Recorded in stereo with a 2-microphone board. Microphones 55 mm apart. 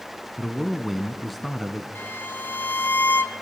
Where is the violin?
40° left (ahead or behind), 0.9 m.